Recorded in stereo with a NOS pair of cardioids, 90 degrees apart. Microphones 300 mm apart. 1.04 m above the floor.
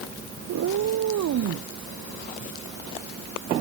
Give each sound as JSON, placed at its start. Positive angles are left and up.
{"t": 0.5, "sound": "a cat meowing", "azimuth_deg": -70}